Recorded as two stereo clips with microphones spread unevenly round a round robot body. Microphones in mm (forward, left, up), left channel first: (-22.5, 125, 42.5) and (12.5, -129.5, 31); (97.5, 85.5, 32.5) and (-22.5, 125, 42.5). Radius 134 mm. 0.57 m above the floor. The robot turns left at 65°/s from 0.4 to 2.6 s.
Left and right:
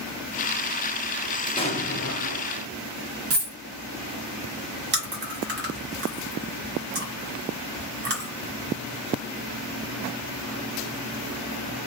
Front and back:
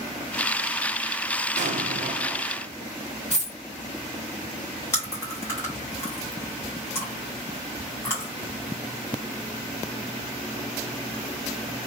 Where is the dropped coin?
105° right, 1.5 m.